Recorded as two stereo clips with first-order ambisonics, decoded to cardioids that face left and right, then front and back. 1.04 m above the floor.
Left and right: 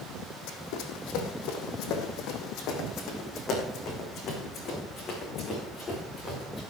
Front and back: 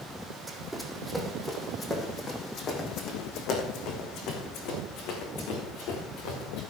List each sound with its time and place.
0.5 s running footsteps: 100° left, 2.5 m; by 6.6 s 20° left, 6 m